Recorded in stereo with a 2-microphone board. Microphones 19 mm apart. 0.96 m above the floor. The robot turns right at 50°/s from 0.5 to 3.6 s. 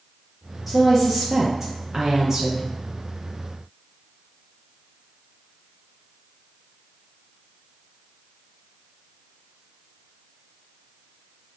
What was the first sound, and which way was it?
A woman speaking, 160° right.